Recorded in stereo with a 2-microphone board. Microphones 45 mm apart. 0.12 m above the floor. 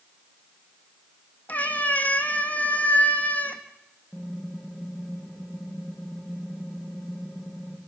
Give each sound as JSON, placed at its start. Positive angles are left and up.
{"t": 1.5, "sound": "a cat meowing", "side_deg": 35, "distance_m": 2.5}
{"t": 4.1, "sound": "typing on a keyboard", "side_deg": 0, "distance_m": 7.5}